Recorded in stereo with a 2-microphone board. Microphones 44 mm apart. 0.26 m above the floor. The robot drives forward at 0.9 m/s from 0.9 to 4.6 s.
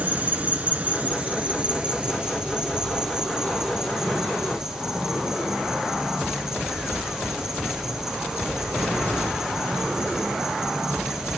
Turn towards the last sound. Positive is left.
turn(degrees=-10)  # may be behind; listen again after turning